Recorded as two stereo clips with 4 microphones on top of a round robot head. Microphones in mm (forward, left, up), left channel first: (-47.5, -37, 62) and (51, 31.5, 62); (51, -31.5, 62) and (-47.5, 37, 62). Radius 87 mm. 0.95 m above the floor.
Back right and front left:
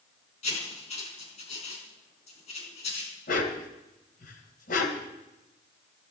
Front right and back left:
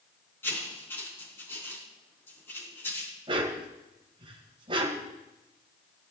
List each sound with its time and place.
0.4 s writing: 110° right, 4.5 m
3.3 s a dog barking: 160° right, 2.0 m